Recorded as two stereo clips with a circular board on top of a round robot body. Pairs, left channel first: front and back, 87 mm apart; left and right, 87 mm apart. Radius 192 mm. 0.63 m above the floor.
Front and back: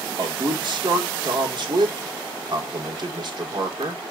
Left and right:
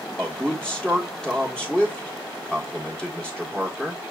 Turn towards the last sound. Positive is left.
turn(degrees=170)